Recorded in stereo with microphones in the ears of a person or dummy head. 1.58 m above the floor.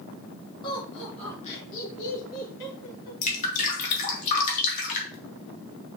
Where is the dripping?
35° left (ahead or behind), 2.5 m.